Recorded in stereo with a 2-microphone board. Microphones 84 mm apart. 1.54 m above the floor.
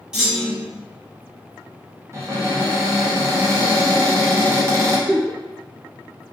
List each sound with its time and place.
0.1 s a clunk: 5° right (ahead or behind), 1.1 m
2.1 s a cupboard door: 30° right (ahead or behind), 0.6 m
5.1 s a giggle: 15° left (ahead or behind), 0.8 m